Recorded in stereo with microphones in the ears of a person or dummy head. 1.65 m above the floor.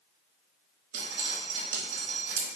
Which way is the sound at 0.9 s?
60° right (ahead or behind).